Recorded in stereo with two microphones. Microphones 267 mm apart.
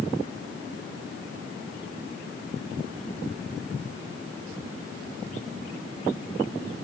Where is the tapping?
No tapping in this recording.